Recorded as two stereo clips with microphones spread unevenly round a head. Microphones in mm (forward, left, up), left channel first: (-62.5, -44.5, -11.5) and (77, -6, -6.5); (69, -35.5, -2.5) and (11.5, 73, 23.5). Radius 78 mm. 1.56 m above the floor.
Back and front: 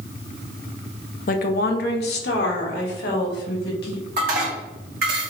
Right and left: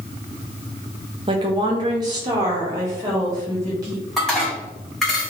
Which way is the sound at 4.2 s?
30° left.